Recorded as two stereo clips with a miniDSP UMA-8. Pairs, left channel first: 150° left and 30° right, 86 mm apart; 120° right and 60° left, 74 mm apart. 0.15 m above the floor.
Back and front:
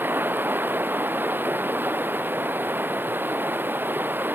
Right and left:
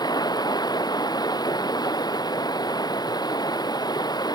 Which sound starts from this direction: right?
Running water, at 0.0 s.